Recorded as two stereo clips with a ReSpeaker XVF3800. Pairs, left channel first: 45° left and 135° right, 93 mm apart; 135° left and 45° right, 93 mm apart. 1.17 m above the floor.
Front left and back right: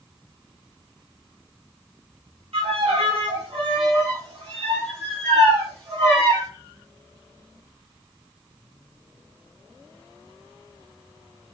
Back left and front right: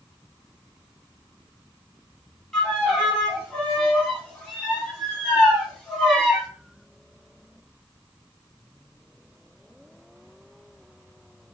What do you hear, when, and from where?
2.5 s a violin: 140° right, 1.9 m